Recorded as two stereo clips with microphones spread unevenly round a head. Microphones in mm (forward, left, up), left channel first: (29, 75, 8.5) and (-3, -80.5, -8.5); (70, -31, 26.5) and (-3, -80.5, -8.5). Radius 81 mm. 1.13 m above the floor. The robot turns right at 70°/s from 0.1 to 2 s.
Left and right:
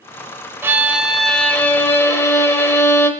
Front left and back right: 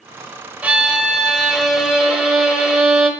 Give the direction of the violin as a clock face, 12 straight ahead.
1 o'clock.